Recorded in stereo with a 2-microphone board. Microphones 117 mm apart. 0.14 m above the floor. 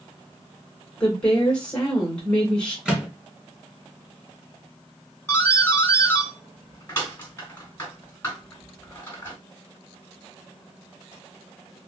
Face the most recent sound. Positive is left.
turn(degrees=20)  # may be behind; listen again after turning